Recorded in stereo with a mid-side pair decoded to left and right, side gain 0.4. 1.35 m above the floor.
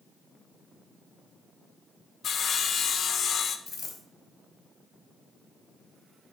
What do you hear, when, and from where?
2.2 s sawing: 60° left, 0.8 m
3.7 s a dropped coin: 50° left, 3 m